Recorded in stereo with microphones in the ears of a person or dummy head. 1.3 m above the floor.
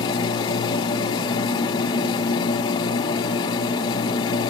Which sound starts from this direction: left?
A machine running, at 0.0 s.